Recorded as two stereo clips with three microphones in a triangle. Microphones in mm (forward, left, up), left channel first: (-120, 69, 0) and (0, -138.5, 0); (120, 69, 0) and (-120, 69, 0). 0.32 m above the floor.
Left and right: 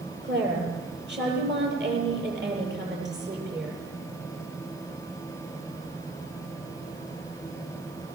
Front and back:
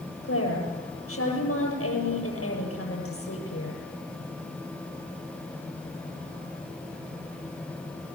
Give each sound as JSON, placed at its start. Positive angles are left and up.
{"t": 0.2, "sound": "a woman speaking", "azimuth_deg": -20, "distance_m": 8.5}